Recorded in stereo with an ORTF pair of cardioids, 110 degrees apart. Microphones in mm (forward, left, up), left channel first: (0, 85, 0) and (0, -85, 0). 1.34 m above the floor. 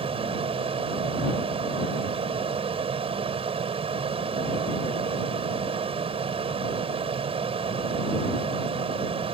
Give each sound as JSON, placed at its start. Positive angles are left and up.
{"t": 0.0, "sound": "a fan", "azimuth_deg": -35}